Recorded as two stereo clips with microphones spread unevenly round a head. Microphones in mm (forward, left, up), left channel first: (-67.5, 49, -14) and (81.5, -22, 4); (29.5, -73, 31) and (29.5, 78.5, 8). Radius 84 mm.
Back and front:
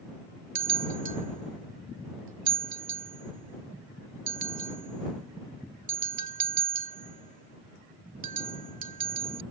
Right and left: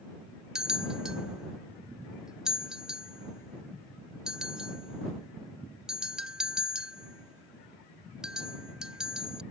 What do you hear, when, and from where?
0.6 s a bell: straight ahead